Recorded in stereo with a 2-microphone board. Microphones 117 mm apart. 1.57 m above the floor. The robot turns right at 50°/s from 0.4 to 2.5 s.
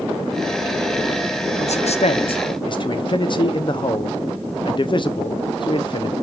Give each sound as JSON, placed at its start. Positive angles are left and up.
{"t": 1.6, "sound": "a man speaking", "azimuth_deg": 90, "distance_m": 0.7}